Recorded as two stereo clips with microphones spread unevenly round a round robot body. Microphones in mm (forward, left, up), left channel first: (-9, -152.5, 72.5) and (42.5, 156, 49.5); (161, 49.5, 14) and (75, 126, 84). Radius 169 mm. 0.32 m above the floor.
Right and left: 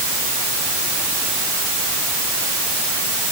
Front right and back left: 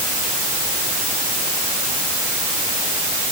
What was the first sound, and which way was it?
Only background noise.